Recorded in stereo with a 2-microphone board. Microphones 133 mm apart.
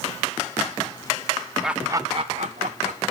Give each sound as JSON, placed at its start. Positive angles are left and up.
{"t": 1.6, "sound": "laughter", "side_deg": -5, "distance_m": 0.6}